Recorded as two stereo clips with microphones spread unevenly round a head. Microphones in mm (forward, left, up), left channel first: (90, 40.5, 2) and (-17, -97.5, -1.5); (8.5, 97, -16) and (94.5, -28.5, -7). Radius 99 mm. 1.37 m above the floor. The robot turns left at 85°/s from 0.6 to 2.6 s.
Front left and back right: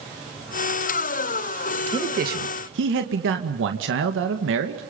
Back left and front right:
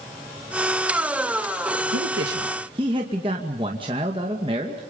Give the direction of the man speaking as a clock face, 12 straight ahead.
2 o'clock.